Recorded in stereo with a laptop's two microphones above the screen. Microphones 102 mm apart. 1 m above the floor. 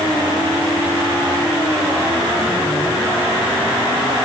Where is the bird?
No bird in this recording.